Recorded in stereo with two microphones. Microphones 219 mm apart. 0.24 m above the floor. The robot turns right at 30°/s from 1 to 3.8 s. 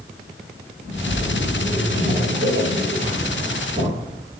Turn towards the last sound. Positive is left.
turn(degrees=-70)